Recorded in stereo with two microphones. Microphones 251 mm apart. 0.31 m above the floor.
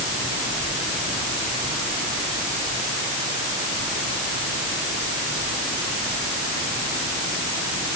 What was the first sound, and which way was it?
Only background noise.